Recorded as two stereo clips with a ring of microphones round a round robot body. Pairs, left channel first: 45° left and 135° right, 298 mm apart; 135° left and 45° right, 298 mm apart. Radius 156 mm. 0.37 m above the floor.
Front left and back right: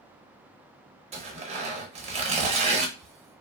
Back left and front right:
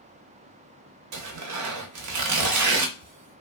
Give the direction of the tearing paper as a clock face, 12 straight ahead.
2 o'clock.